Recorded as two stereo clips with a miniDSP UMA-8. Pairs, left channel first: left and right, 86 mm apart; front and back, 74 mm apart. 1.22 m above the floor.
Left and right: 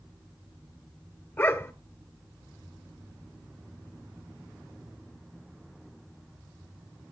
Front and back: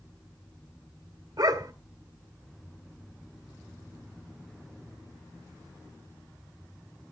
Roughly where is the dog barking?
Behind left.